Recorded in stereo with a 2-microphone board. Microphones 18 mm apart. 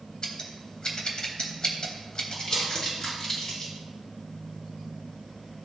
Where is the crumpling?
40° left (ahead or behind), 4 m.